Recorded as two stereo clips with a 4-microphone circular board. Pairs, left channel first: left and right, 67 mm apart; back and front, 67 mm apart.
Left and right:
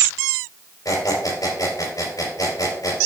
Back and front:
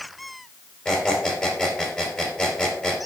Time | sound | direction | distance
0.8 | a squeak | 105° left | 3.5 m